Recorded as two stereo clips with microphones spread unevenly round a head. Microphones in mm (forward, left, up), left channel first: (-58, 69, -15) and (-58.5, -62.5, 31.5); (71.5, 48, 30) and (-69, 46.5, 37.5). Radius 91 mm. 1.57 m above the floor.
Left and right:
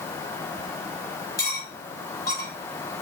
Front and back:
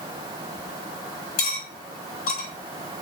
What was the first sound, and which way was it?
Cutlery clinking, 15° left.